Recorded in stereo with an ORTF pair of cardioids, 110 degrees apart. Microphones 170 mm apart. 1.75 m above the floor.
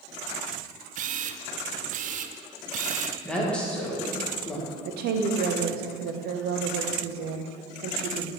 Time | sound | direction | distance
0.9 | a camera shutter | 50° right | 0.5 m
3.2 | a woman speaking | 5° left | 1.9 m
4.8 | a woman speaking | 70° right | 0.9 m